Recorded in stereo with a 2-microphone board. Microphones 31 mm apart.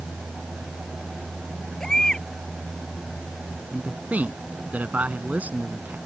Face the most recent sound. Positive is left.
turn(degrees=-60)  # may be behind; listen again after turning